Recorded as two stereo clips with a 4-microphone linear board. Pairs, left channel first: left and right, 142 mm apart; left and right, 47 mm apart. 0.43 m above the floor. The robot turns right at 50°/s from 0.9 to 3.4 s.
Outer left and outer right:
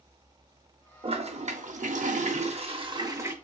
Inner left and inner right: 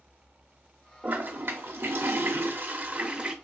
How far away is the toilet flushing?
About 0.6 m.